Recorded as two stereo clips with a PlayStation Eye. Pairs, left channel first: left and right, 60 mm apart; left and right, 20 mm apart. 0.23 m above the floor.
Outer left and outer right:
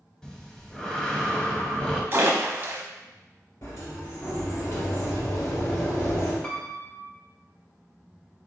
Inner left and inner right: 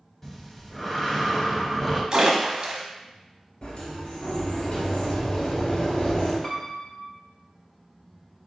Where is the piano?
20° left (ahead or behind), 0.8 m.